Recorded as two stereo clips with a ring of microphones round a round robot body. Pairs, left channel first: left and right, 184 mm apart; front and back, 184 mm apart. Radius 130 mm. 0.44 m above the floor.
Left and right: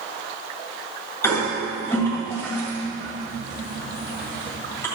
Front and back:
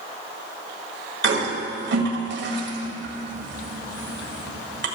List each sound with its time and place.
1.2 s a toilet flushing: 170° left, 1.7 m